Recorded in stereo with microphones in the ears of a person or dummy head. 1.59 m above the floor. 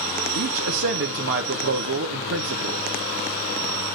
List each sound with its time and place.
0.3 s a man speaking: 60° right (ahead or behind), 0.9 m